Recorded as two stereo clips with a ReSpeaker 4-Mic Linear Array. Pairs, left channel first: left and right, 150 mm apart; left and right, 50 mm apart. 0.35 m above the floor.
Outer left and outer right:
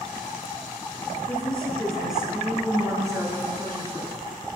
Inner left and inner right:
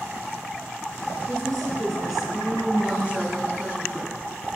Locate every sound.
1.3 s a woman speaking: 10° left (ahead or behind), 5 m; by 4.2 s 45° right (ahead or behind), 4 m